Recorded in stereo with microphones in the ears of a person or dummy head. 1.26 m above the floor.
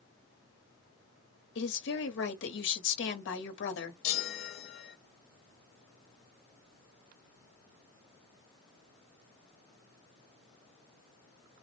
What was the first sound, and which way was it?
A woman speaking, 60° left (ahead or behind).